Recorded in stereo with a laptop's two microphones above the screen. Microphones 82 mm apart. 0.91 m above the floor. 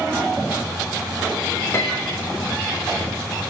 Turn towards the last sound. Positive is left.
turn(degrees=35)  # may be behind; listen again after turning